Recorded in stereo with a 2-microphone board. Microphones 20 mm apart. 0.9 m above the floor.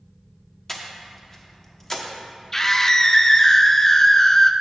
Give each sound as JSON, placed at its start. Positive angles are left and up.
{"t": 0.7, "sound": "breathing", "side_deg": 20, "distance_m": 1.1}
{"t": 2.5, "sound": "a scream", "side_deg": 20, "distance_m": 0.5}